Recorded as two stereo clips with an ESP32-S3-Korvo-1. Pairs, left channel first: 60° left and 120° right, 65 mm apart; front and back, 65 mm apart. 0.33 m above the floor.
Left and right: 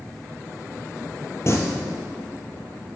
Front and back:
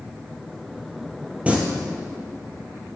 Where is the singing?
110° left, 1.8 m.